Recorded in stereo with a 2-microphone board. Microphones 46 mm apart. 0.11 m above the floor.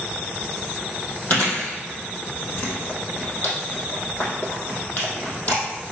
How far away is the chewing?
About 3 m.